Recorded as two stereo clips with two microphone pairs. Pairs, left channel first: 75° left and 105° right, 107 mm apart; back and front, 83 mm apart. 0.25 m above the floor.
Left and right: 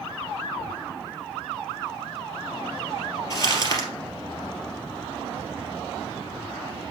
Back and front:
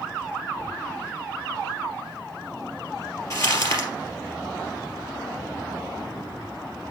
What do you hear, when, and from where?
3.3 s crumpling: 130° left, 2.5 m